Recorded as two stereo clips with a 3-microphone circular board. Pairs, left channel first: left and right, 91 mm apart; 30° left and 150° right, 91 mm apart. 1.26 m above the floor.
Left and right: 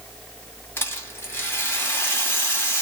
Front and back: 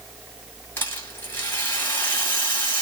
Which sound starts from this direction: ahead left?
A rattle, at 0.8 s.